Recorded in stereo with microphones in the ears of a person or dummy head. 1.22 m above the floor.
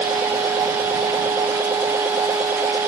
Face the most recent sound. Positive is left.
turn(degrees=-15)  # may be behind; listen again after turning